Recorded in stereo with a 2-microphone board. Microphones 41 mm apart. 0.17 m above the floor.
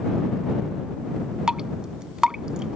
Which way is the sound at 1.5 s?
15° right (ahead or behind).